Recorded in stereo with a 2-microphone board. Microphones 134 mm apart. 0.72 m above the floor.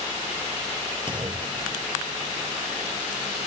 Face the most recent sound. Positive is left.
turn(degrees=-35)  # may be behind; listen again after turning